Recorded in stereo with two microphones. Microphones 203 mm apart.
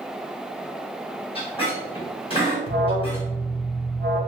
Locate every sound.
1.4 s a squeak: 25° left (ahead or behind), 1.3 m
2.7 s an alarm: 50° right (ahead or behind), 0.5 m